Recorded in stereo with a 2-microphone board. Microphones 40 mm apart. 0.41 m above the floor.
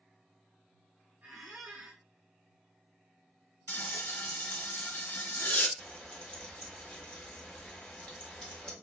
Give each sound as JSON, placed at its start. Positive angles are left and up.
{"t": 1.2, "sound": "a squeak", "side_deg": -45, "distance_m": 0.7}
{"t": 3.7, "sound": "frying", "side_deg": 65, "distance_m": 0.5}
{"t": 5.8, "sound": "frying", "side_deg": 20, "distance_m": 1.1}